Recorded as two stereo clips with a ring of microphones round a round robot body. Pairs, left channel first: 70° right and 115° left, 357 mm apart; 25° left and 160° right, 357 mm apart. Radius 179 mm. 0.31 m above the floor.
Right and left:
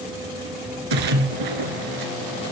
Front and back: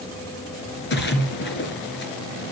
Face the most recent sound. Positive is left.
turn(degrees=85)